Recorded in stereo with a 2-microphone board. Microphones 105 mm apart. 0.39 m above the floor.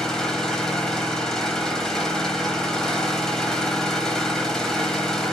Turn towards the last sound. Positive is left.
turn(degrees=5)  # may be behind; listen again after turning